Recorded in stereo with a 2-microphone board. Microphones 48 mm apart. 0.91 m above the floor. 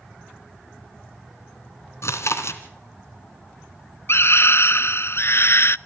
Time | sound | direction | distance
2.0 | chewing | 70° left (ahead or behind) | 2.5 m
4.1 | a scream | 55° left (ahead or behind) | 0.6 m